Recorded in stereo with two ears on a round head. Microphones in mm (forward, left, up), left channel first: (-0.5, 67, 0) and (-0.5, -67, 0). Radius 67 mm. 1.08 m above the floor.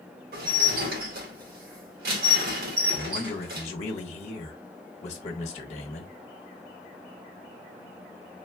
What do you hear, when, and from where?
0.3 s dishes clattering: 70° right (ahead or behind), 1.4 m
2.9 s a man speaking: 45° left (ahead or behind), 1.1 m